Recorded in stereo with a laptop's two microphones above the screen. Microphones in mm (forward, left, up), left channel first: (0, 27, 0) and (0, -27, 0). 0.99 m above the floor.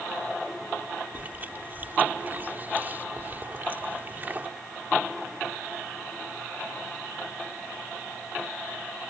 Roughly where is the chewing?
Right.